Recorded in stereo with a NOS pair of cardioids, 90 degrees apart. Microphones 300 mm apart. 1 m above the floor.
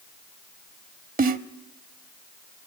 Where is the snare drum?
30° right, 1.0 m.